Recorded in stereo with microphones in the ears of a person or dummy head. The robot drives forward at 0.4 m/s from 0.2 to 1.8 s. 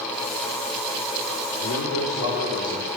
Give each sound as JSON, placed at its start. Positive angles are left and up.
{"t": 1.6, "sound": "a man speaking", "side_deg": 85, "distance_m": 4.0}